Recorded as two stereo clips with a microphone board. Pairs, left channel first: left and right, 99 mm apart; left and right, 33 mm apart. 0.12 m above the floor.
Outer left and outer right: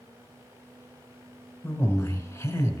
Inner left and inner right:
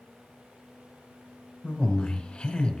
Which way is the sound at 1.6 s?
25° left (ahead or behind).